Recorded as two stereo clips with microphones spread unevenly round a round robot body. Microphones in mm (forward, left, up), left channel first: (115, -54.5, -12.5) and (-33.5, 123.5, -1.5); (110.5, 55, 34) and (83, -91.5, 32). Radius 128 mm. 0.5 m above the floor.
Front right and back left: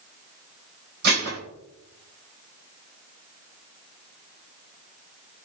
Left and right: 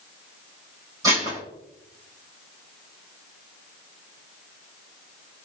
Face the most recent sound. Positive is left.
turn(degrees=-175)